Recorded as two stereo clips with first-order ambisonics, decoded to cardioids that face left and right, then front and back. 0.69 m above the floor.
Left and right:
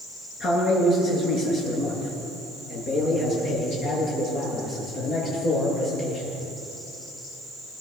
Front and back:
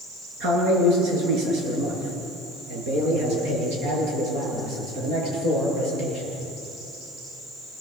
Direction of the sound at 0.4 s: 145° left.